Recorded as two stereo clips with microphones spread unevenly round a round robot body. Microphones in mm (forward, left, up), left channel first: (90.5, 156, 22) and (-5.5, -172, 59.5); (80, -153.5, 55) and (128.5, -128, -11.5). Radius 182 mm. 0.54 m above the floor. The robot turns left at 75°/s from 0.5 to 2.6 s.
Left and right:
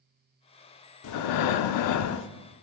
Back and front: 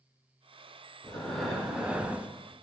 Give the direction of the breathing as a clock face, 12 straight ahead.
8 o'clock.